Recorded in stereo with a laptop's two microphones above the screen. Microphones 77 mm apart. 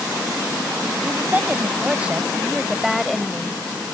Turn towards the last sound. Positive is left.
turn(degrees=10)  # may be behind; listen again after turning